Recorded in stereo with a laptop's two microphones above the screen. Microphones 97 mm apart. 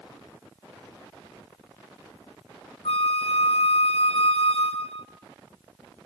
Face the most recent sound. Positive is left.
turn(degrees=75)  # may be behind; listen again after turning